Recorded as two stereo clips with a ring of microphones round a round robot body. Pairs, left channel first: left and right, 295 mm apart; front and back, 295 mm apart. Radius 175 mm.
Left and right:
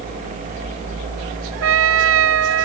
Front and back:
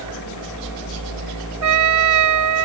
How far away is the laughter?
No laughter in this recording.